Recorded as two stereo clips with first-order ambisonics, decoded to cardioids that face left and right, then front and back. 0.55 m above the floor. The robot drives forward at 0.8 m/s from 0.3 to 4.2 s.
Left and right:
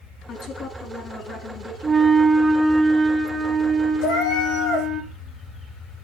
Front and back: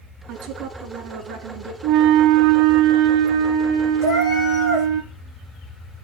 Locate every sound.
0.3 s a woman speaking: 145° left, 5.5 m; by 1.7 s 150° left, 6.5 m
1.8 s a flute: 165° right, 0.5 m; by 5.0 s 175° right, 2.5 m
4.0 s a cat meowing: 120° left, 8.5 m